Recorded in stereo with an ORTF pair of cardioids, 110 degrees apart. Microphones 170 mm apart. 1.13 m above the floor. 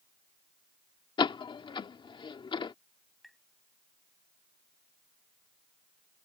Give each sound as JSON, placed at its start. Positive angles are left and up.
{"t": 1.2, "sound": "a door slam", "azimuth_deg": 30}
{"t": 3.2, "sound": "tapping", "azimuth_deg": 0}